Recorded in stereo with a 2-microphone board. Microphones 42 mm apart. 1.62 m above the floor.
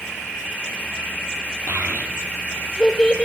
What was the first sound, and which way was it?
A child speaking, 55° right (ahead or behind).